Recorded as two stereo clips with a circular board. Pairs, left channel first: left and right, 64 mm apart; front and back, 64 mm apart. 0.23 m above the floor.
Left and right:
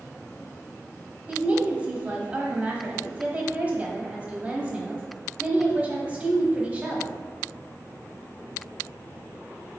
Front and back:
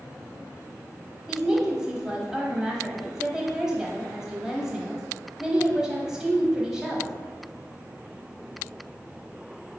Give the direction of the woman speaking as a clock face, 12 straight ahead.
4 o'clock.